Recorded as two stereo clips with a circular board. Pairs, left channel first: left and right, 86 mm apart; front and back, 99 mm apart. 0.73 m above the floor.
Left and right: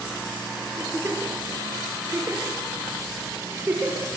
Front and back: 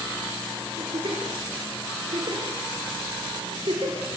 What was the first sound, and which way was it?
A giggle, 150° right.